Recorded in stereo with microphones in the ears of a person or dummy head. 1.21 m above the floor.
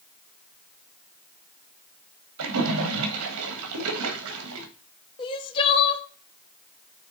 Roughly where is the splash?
Right.